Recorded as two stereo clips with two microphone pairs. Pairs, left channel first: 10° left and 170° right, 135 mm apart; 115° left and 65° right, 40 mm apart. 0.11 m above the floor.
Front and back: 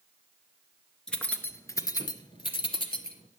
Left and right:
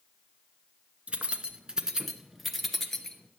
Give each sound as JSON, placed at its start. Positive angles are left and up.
{"t": 1.1, "sound": "keys jangling", "azimuth_deg": -75, "distance_m": 0.9}